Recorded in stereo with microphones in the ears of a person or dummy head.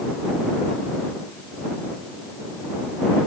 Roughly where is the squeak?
I don't hear a squeak.